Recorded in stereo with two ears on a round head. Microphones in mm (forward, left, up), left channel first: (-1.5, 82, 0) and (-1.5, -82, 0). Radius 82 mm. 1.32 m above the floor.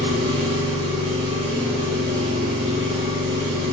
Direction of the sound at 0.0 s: 25° right (ahead or behind).